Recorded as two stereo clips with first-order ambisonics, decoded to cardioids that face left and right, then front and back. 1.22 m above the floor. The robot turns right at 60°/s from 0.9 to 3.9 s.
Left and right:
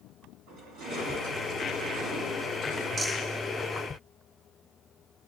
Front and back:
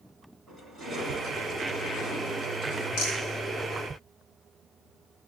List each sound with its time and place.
0.5 s crushing: 100° right, 3 m; by 2.9 s 15° left, 3 m
3.0 s a rattle: 15° right, 5 m; by 3.2 s straight ahead, 5 m